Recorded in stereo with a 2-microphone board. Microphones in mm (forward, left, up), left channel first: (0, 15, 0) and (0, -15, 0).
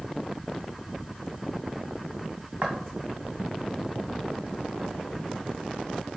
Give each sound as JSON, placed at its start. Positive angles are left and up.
{"t": 2.6, "sound": "footsteps", "side_deg": -30, "distance_m": 1.4}